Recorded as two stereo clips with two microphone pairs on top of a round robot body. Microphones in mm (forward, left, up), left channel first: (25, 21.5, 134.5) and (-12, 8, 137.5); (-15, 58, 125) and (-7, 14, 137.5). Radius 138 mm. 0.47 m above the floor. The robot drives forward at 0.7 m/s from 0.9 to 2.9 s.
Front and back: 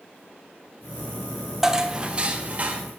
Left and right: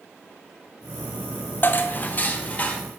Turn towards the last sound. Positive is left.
turn(degrees=150)